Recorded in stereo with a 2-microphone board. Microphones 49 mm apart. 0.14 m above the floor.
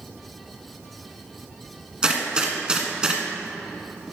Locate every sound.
2.0 s a gunshot: 15° right (ahead or behind), 1.4 m